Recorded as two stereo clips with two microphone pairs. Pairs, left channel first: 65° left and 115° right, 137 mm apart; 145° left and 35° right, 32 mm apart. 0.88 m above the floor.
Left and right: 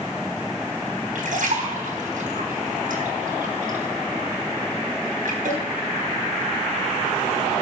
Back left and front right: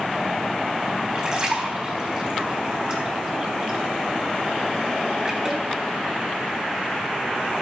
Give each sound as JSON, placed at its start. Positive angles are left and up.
{"t": 1.1, "sound": "a splash", "azimuth_deg": -95, "distance_m": 4.0}